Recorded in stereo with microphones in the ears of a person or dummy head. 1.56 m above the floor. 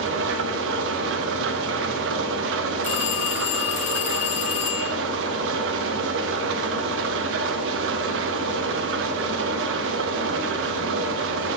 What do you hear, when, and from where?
0.0 s an engine running: 75° right (ahead or behind), 1.0 m
2.8 s a phone ringing: 40° left (ahead or behind), 1.0 m